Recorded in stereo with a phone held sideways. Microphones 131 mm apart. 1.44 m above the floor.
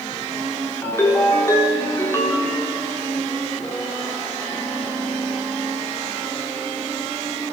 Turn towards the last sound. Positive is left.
turn(degrees=20)  # may be behind; listen again after turning